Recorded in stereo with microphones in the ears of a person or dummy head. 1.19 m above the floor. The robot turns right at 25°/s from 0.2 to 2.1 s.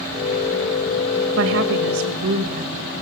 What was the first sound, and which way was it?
A woman speaking, 80° right.